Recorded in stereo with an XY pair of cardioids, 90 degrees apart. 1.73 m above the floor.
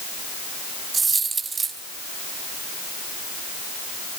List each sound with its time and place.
0.9 s a dropped coin: 55° right, 4 m